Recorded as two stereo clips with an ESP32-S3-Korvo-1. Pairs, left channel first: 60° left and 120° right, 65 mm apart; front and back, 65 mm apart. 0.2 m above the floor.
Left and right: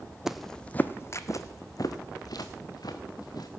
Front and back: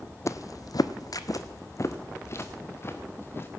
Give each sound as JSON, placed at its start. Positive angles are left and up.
{"t": 0.3, "sound": "footsteps", "azimuth_deg": -35, "distance_m": 0.6}